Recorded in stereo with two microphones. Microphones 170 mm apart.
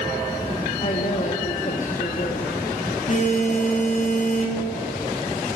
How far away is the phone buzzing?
About 1.9 m.